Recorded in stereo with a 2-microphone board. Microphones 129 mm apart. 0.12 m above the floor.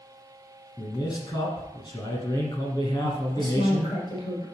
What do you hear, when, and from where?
0.8 s a man speaking: 30° left (ahead or behind), 1.7 m
3.4 s a woman speaking: 35° left (ahead or behind), 2.5 m